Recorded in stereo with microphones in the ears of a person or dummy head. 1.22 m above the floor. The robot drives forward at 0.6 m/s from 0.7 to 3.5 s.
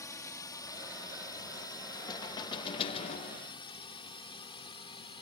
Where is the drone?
15° left (ahead or behind); by 5.2 s 25° left (ahead or behind).